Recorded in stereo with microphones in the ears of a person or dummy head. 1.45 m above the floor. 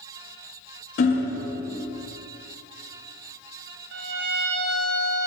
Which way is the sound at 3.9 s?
55° right (ahead or behind).